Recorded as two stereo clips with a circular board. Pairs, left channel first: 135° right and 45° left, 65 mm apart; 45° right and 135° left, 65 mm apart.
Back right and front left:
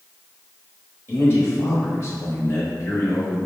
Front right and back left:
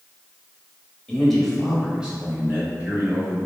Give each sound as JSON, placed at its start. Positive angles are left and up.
{"t": 1.1, "sound": "a man speaking", "azimuth_deg": -115, "distance_m": 1.2}